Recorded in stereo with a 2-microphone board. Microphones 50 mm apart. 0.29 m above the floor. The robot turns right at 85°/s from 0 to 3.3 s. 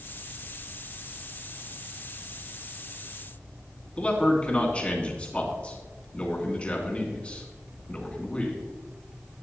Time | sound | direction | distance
4.0 | a man speaking | 25° left (ahead or behind) | 2.5 m